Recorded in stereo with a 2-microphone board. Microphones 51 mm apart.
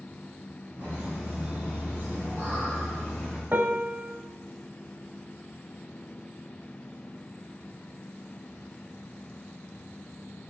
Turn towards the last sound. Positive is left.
turn(degrees=-40)  # may be behind; listen again after turning